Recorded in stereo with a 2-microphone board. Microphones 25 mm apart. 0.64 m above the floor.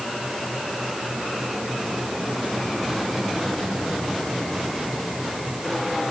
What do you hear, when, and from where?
Only background noise.